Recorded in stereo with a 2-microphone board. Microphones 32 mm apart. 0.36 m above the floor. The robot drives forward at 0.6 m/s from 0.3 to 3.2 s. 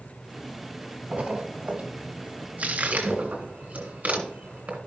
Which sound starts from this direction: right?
A splash, at 1.1 s.